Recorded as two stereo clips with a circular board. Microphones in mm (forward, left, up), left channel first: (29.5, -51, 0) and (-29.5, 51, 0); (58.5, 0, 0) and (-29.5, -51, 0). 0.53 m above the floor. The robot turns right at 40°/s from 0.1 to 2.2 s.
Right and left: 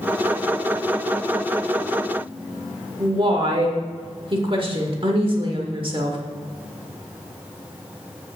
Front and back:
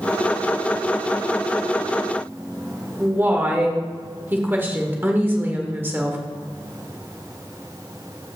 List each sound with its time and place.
3.0 s a woman speaking: 145° left, 1.5 m